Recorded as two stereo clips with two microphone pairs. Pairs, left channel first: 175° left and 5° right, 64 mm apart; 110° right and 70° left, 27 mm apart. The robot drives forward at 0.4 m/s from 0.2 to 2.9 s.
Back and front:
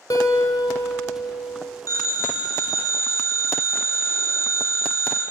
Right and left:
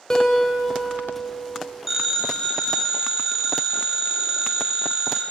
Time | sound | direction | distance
0.1 | a guitar | 175° right | 1.1 m
1.9 | a phone ringing | 150° left | 1.7 m